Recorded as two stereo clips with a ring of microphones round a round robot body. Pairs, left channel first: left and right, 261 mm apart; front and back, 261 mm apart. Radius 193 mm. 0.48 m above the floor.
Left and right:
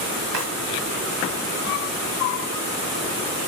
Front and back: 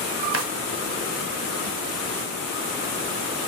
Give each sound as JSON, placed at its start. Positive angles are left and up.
{"t": 0.3, "sound": "a drawer", "azimuth_deg": -140, "distance_m": 1.7}